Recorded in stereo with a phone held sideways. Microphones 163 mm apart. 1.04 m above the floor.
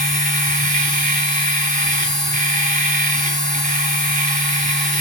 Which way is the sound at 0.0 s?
50° right (ahead or behind).